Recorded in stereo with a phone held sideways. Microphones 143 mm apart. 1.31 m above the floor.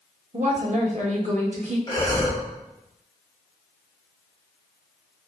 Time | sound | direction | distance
0.3 | a woman speaking | 55° right (ahead or behind) | 1.3 m
1.9 | breathing | 30° left (ahead or behind) | 1.5 m